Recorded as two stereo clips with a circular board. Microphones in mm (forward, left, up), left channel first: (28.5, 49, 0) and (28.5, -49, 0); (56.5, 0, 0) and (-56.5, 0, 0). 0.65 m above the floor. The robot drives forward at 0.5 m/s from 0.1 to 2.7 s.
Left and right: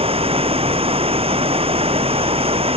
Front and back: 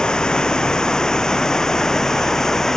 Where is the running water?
85° right.